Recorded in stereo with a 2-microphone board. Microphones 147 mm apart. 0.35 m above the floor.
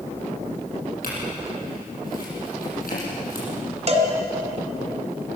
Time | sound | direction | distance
1.0 | a clink | 75° left (ahead or behind) | 8.5 m
3.9 | a cowbell | 45° right (ahead or behind) | 2 m